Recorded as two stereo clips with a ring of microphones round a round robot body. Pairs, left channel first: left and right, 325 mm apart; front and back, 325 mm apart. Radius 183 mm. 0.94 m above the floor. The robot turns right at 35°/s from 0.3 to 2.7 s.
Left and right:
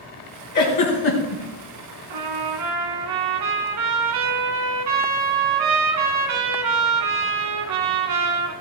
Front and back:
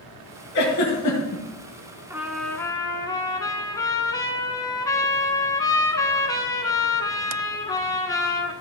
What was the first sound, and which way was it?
A giggle, 60° left.